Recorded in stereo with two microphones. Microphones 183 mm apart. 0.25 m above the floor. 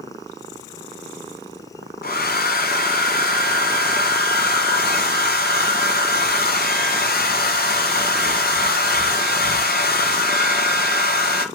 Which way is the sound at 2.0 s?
55° left (ahead or behind).